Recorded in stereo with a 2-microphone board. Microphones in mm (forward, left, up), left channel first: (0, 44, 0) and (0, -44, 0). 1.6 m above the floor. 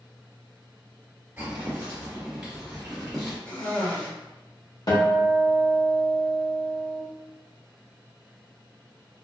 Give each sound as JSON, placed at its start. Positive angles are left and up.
{"t": 1.4, "sound": "footsteps", "side_deg": -20, "distance_m": 1.9}
{"t": 3.5, "sound": "a cough", "side_deg": 20, "distance_m": 1.4}
{"t": 4.9, "sound": "a guitar", "side_deg": 50, "distance_m": 1.3}